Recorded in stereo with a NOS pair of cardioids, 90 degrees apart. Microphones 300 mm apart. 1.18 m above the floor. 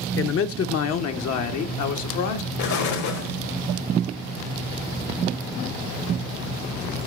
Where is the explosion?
65° left, 2.0 m.